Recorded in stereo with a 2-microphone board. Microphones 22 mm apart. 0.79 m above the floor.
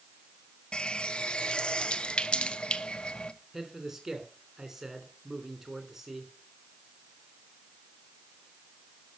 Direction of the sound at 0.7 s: 50° left (ahead or behind).